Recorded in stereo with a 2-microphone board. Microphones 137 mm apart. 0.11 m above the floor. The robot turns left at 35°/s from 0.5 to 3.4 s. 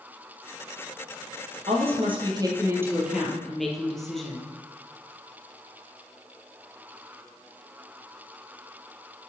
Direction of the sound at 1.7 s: 120° right.